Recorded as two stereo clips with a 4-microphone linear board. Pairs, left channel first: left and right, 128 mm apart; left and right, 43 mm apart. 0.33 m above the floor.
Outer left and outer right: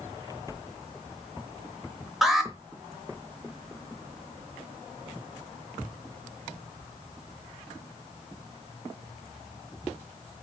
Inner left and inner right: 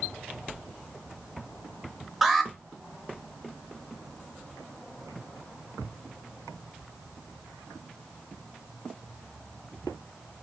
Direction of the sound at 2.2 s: Centre (ahead or behind).